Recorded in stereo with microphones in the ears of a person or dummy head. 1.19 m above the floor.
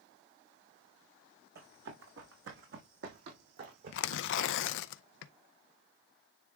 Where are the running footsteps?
70° right (ahead or behind), 4 m; by 4.8 s 55° right (ahead or behind), 3.5 m.